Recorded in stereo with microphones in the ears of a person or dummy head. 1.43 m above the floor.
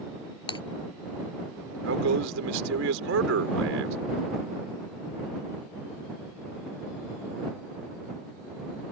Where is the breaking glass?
30° left (ahead or behind).